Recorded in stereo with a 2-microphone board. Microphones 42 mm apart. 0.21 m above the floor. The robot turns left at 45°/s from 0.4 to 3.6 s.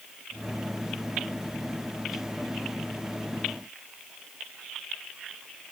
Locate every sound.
Only background noise.